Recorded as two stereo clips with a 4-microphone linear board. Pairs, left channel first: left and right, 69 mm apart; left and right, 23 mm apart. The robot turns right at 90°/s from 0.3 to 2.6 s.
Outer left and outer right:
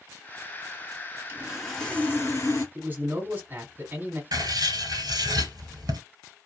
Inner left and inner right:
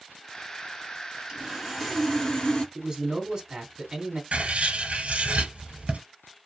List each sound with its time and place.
1.3 s sawing: 35° right, 1.1 m; by 2.6 s 80° left, 1.1 m
2.8 s a man speaking: 25° right (ahead or behind), 1.5 m
4.3 s writing: 80° right, 0.9 m